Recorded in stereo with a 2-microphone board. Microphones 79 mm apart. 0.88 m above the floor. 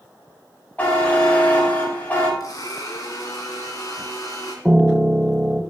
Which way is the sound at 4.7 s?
10° right (ahead or behind).